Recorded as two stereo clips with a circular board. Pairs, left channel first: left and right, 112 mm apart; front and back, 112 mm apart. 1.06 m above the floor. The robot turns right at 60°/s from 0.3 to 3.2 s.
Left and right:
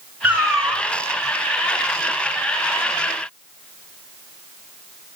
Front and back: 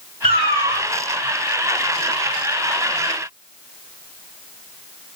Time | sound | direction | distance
0.2 | a cat meowing | 170° right | 1.9 m